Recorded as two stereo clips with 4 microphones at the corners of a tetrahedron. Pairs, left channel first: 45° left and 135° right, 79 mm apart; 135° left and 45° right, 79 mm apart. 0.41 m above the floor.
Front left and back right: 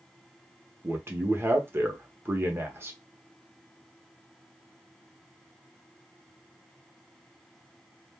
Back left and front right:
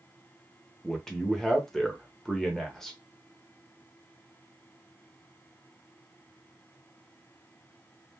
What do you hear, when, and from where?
0.8 s a man speaking: 145° right, 0.8 m